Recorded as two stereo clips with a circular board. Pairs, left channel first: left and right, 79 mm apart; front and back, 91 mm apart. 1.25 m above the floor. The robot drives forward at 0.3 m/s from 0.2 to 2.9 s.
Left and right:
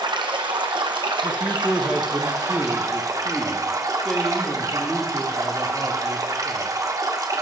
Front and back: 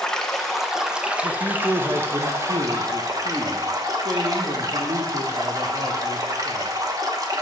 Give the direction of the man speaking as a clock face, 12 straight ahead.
7 o'clock.